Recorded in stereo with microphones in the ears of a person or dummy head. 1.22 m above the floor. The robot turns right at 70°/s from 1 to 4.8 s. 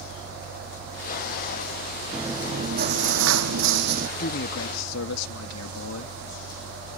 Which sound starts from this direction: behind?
Chewing, at 2.1 s.